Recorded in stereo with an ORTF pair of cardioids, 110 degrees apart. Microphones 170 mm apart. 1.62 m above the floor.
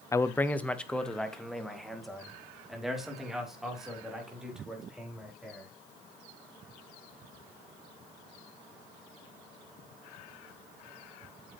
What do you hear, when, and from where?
0.1 s a man speaking: 20° left, 0.7 m; by 5.7 s 5° right, 5.5 m